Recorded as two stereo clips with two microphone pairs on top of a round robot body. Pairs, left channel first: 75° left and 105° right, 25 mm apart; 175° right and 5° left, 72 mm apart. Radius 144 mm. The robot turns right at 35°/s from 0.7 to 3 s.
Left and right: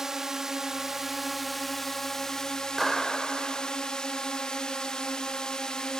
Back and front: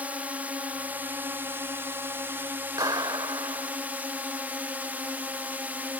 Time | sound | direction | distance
0.0 | a drone | 35° right | ?
2.8 | a clap | 15° right | ?